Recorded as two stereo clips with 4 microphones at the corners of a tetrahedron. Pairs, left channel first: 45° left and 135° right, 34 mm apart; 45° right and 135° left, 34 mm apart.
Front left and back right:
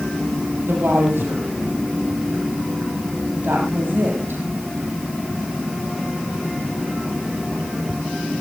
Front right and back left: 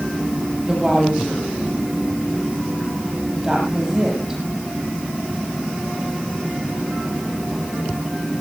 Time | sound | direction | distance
0.6 | a woman speaking | 155° right | 8.5 m